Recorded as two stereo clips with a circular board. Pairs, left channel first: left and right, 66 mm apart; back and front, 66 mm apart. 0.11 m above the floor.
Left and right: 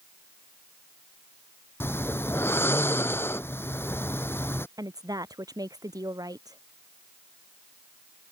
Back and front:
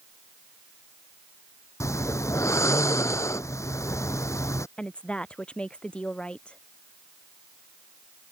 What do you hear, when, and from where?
1.8 s snoring: 140° left
4.8 s a woman speaking: 105° right